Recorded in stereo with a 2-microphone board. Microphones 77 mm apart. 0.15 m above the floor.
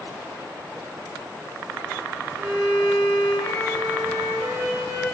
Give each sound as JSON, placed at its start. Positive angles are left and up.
{"t": 2.4, "sound": "a violin", "side_deg": 5, "distance_m": 1.7}